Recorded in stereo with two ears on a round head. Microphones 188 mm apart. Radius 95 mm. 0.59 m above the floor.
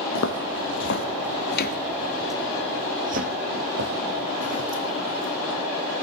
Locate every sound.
0.1 s footsteps: 70° left (ahead or behind), 1.7 m; by 5.5 s 60° right (ahead or behind), 3 m